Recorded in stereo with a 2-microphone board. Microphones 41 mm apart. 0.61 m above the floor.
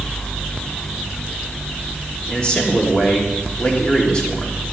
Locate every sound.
2.3 s a man speaking: 25° left (ahead or behind), 1.5 m